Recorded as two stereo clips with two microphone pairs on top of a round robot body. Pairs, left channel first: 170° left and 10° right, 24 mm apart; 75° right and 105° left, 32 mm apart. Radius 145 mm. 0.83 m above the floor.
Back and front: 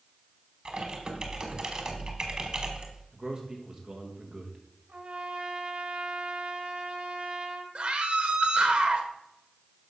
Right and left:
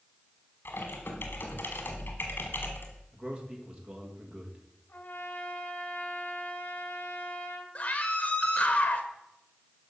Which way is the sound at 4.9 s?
35° right.